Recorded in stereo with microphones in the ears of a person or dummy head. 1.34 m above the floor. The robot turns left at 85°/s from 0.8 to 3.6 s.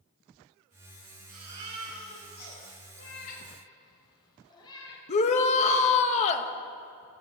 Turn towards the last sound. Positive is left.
turn(degrees=35)  # may be behind; listen again after turning